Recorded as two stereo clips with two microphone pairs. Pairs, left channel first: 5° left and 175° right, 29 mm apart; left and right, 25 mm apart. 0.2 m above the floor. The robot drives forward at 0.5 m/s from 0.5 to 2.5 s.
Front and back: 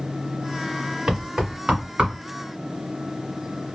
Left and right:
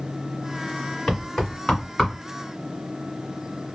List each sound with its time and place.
1.1 s knocking: 140° left, 1.7 m; by 2.1 s 150° left, 2 m